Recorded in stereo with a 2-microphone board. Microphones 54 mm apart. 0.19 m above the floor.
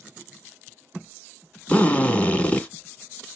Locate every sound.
1.7 s a drill: 25° left (ahead or behind), 1.0 m